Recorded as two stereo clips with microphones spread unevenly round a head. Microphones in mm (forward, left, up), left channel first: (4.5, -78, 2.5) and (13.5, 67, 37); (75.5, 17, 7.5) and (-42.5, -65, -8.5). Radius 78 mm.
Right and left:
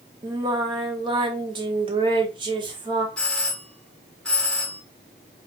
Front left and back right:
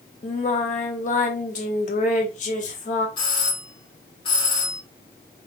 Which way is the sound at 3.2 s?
20° right.